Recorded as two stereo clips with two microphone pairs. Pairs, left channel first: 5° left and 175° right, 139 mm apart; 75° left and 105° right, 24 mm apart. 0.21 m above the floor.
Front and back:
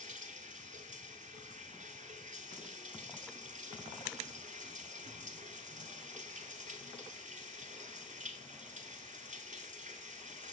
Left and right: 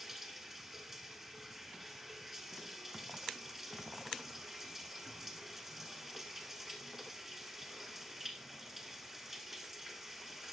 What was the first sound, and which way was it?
Running water, straight behind.